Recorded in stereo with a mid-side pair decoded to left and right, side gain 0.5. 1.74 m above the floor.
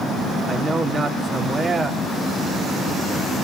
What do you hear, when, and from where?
0.5 s a man speaking: 40° right, 4.5 m